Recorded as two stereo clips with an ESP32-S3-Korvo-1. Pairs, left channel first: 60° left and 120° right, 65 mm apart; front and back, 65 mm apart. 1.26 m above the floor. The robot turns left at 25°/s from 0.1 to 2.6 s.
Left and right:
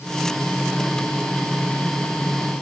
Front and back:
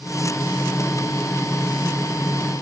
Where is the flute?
No flute in this recording.